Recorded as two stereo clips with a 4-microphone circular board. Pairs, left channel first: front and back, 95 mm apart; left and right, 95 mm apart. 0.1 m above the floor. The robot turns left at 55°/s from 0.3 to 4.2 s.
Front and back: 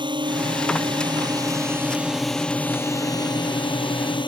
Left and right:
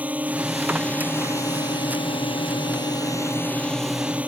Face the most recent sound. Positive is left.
turn(degrees=-15)